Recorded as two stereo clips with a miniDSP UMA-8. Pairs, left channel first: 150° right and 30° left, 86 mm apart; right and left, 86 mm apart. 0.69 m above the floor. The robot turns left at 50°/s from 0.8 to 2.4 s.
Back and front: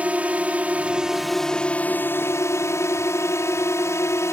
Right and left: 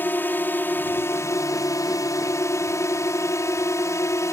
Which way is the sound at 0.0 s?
35° right.